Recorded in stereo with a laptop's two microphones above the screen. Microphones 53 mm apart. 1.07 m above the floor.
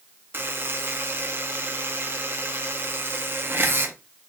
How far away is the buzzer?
About 0.5 m.